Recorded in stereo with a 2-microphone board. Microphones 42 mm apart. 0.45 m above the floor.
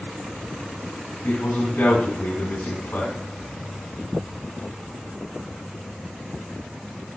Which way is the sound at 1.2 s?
70° left (ahead or behind).